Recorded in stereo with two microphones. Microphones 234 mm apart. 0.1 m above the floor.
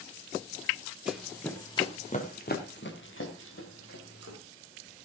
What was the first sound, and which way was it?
Running footsteps, 5° right (ahead or behind).